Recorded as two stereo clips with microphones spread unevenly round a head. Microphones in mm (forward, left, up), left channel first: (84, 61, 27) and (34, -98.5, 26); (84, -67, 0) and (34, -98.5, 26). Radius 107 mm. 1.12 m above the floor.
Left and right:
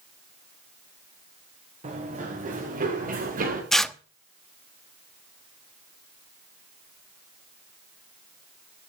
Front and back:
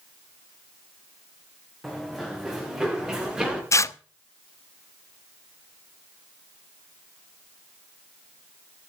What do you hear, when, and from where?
1.8 s running footsteps: 60° right, 5.5 m; by 3.6 s 75° right, 7.5 m
3.7 s tearing paper: 15° right, 1.0 m